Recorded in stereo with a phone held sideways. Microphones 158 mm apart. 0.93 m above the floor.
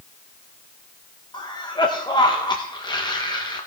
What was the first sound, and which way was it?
A cough, 25° left (ahead or behind).